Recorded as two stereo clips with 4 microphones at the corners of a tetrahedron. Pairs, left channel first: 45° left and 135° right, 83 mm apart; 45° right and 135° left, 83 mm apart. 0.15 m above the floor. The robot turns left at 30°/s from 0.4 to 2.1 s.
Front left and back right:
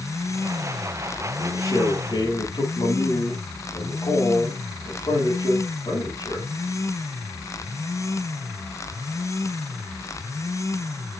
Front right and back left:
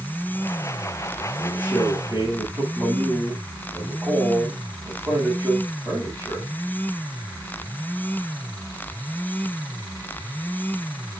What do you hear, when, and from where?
1.4 s a man speaking: 95° left, 6 m; by 6.5 s 75° left, 6 m